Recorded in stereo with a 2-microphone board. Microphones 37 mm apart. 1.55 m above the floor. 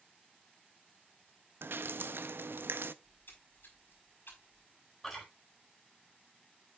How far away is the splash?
About 4.5 m.